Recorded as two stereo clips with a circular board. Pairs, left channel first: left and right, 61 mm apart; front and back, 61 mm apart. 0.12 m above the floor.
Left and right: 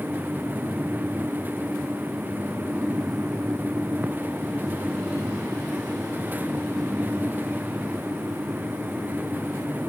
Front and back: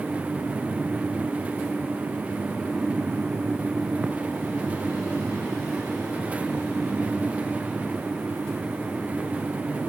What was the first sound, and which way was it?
Only background noise.